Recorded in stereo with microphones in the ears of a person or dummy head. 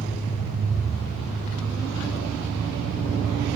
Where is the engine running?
50° right (ahead or behind), 4 m.